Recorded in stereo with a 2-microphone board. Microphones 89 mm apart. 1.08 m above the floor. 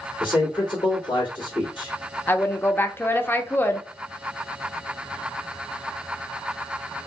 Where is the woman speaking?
25° left (ahead or behind), 0.7 m.